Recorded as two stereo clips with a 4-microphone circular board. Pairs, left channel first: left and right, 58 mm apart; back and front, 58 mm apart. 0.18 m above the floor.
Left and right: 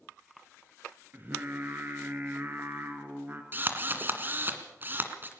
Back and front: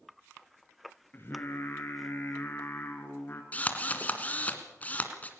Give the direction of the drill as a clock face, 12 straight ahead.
4 o'clock.